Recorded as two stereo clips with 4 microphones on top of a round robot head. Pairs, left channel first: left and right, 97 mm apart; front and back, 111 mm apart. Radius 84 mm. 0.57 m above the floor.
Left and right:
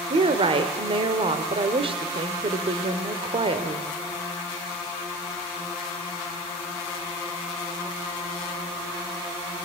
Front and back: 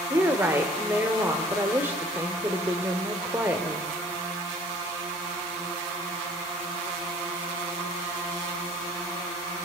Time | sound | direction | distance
0.1 | a woman speaking | 110° right | 1.8 m